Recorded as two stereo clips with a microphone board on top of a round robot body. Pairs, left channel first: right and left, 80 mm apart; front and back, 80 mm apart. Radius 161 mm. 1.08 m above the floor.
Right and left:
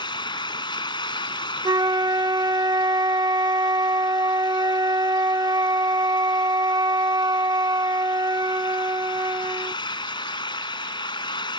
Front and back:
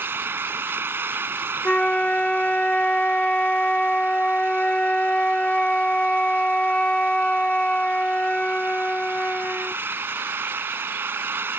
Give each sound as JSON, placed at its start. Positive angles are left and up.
{"t": 0.0, "sound": "an engine running", "azimuth_deg": -115}
{"t": 1.6, "sound": "a flute", "azimuth_deg": 75}